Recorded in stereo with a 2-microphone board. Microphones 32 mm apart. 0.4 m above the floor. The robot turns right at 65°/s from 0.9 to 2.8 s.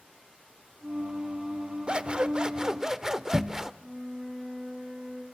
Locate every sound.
1.9 s scissors: 25° right (ahead or behind), 0.6 m; by 3.7 s 15° right (ahead or behind), 0.6 m
3.8 s a flute: centre (ahead or behind), 7.5 m